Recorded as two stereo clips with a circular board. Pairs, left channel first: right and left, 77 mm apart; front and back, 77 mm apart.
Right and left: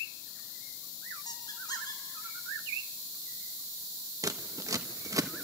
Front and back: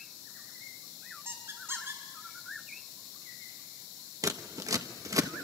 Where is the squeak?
125° right, 4.5 m.